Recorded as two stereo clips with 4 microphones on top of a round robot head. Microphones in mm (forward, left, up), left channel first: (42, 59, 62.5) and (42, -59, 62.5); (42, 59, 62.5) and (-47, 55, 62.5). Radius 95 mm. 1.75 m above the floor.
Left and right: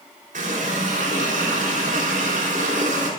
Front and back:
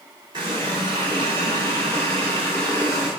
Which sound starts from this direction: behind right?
A running tap, at 0.3 s.